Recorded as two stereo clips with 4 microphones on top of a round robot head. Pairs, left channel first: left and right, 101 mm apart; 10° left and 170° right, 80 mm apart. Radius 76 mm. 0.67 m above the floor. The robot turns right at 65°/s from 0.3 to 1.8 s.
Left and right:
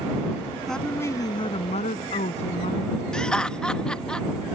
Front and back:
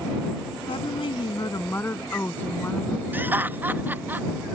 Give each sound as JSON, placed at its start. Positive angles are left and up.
{"t": 0.7, "sound": "a woman speaking", "azimuth_deg": 0}
{"t": 3.1, "sound": "laughter", "azimuth_deg": 160}